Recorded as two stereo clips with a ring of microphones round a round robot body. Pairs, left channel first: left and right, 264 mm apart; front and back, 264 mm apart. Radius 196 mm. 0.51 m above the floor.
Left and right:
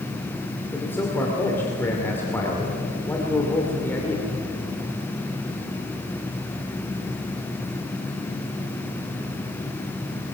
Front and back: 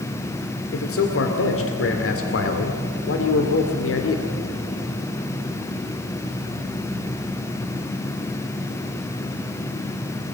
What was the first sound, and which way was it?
A man speaking, 10° left.